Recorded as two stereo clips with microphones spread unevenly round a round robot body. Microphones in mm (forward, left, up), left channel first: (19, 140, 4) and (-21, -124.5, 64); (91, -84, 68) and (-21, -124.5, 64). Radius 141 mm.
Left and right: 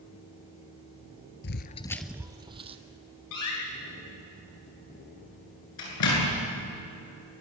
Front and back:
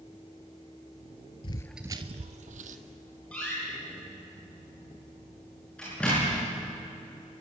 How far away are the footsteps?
About 0.7 m.